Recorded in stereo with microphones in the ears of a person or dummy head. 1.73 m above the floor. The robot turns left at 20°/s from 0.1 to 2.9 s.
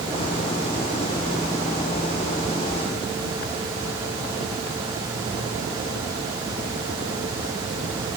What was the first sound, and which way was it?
Only background noise.